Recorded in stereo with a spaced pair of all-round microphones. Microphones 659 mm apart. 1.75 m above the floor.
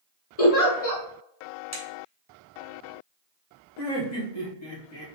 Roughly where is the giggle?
Left.